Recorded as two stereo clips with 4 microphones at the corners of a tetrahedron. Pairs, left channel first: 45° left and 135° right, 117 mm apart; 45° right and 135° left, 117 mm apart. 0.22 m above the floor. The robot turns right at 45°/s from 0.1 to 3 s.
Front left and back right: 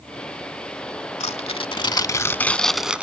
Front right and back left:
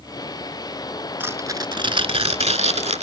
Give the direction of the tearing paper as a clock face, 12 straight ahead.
10 o'clock.